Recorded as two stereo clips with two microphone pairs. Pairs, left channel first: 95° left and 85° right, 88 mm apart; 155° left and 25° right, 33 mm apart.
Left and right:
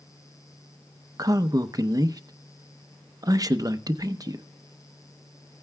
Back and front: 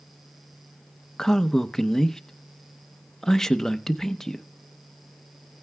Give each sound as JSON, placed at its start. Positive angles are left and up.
{"t": 1.2, "sound": "a man speaking", "azimuth_deg": -130, "distance_m": 0.7}